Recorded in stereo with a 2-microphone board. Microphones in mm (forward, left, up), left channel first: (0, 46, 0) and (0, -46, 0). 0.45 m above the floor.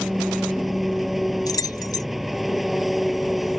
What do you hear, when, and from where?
0.0 s an engine running: centre (ahead or behind)
1.5 s keys jangling: 40° left (ahead or behind)